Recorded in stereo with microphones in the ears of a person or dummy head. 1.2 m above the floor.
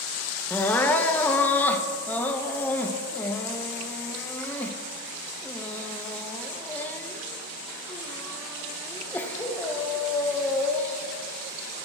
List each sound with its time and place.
0.5 s crying: 10° left (ahead or behind), 0.6 m